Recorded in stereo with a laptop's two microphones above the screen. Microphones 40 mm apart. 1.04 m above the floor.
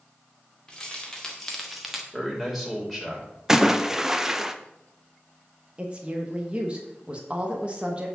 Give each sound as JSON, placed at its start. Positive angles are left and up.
{"t": 0.7, "sound": "keys jangling", "side_deg": 20, "distance_m": 2.0}
{"t": 2.1, "sound": "a man speaking", "side_deg": 0, "distance_m": 5.0}
{"t": 3.5, "sound": "a splash", "side_deg": -15, "distance_m": 0.5}
{"t": 5.8, "sound": "a woman speaking", "side_deg": -30, "distance_m": 1.2}